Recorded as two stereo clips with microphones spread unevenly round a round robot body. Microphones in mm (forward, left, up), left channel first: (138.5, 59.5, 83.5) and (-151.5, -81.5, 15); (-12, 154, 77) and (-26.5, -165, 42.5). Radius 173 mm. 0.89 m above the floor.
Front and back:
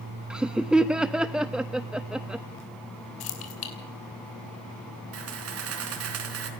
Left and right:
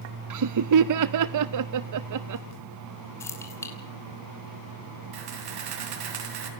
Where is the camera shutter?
105° right, 4 m.